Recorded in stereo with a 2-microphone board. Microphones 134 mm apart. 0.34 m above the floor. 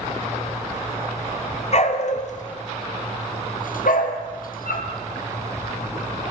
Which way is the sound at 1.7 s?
50° left (ahead or behind).